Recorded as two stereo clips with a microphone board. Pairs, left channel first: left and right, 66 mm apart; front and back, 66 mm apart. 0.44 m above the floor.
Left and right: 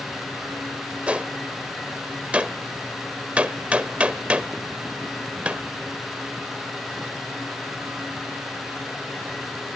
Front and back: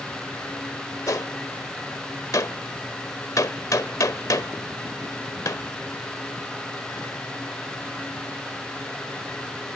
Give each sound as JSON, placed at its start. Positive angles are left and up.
{"t": 1.1, "sound": "a gunshot", "azimuth_deg": -20, "distance_m": 0.8}